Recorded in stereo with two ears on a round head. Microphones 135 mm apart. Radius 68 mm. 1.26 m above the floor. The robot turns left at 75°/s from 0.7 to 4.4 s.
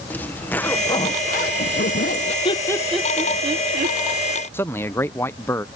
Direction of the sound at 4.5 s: 15° left (ahead or behind).